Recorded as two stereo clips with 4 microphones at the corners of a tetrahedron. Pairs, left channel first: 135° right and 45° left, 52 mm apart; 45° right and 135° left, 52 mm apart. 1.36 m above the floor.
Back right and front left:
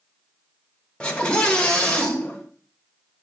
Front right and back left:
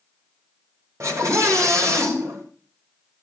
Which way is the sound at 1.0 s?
155° left.